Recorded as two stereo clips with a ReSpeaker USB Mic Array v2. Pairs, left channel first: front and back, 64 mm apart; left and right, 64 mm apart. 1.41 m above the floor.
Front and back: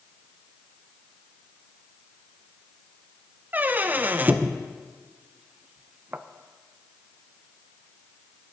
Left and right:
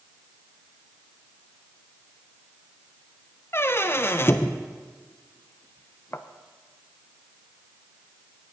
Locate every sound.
3.5 s a squeak: 125° left, 0.5 m